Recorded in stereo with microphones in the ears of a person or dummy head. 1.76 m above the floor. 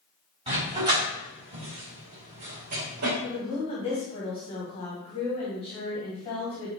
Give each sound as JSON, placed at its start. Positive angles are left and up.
{"t": 0.5, "sound": "a dog barking", "side_deg": -25, "distance_m": 4.0}
{"t": 3.2, "sound": "a woman speaking", "side_deg": 30, "distance_m": 1.8}